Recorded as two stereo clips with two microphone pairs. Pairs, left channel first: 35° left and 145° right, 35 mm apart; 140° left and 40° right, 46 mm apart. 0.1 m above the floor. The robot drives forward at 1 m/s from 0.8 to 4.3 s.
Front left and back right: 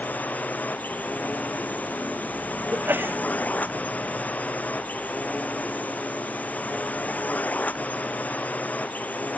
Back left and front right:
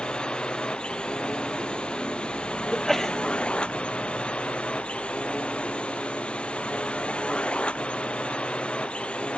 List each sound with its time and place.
0.0 s a drone: 70° left; by 9.4 s 75° left
2.7 s a sneeze: 140° right